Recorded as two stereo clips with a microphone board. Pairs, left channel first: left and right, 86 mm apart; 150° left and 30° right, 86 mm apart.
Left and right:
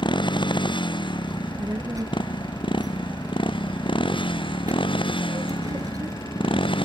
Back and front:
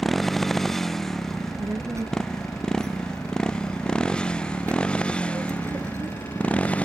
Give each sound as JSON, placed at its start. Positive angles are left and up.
{"t": 0.0, "sound": "a motorcycle", "azimuth_deg": 60}
{"t": 1.3, "sound": "a child speaking", "azimuth_deg": -70}